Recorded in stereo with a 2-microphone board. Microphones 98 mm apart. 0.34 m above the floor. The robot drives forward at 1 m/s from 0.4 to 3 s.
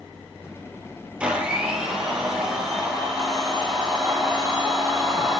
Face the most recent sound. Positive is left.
turn(degrees=-5)  # may be behind; listen again after turning